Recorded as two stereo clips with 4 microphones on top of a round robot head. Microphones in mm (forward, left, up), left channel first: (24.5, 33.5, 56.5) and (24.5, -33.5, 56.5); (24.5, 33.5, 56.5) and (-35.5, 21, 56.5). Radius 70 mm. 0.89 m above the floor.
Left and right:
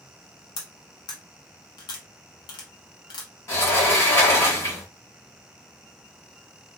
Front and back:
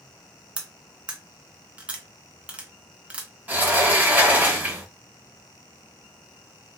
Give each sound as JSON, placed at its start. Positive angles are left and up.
{"t": 0.6, "sound": "cutlery clinking", "azimuth_deg": 120, "distance_m": 0.5}
{"t": 3.5, "sound": "a sliding door", "azimuth_deg": 135, "distance_m": 1.4}